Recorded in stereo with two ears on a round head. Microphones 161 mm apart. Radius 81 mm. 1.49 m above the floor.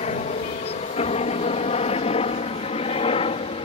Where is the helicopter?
35° left (ahead or behind); by 3.7 s 30° left (ahead or behind).